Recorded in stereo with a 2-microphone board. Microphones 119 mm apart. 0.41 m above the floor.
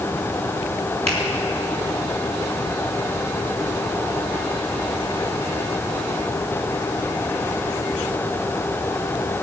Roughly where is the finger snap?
Right.